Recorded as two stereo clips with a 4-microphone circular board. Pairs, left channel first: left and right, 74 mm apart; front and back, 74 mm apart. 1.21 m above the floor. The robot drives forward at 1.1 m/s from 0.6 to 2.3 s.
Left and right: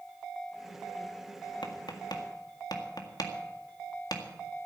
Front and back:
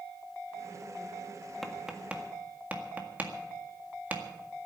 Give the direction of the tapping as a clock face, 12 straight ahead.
9 o'clock.